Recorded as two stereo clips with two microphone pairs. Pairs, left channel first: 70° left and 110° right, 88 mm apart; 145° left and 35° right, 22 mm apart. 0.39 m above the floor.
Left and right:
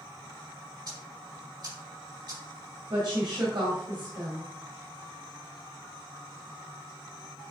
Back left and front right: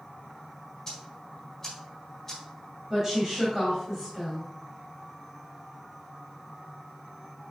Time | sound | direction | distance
0.9 | ticking | 140° right | 3.5 m
2.9 | a woman speaking | 105° right | 2 m